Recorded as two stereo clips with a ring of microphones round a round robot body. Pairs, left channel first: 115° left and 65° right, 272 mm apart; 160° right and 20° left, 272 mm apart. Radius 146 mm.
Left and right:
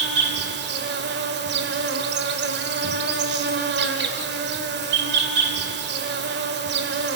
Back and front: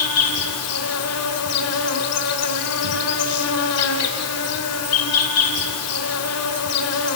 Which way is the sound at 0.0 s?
120° right.